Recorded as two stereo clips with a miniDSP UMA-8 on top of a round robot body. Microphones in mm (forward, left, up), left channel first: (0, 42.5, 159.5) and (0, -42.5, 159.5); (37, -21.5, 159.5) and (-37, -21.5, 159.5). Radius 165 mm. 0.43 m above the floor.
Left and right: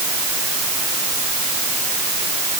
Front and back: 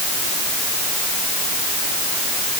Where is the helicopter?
I don't hear a helicopter.